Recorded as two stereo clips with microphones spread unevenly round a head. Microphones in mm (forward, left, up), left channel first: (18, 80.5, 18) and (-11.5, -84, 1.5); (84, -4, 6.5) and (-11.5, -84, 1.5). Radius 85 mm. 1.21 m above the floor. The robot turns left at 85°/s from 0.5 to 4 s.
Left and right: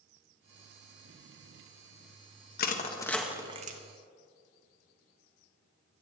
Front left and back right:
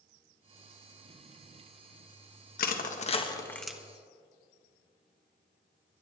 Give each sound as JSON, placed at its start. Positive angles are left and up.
{"t": 2.6, "sound": "crushing", "azimuth_deg": 45, "distance_m": 1.5}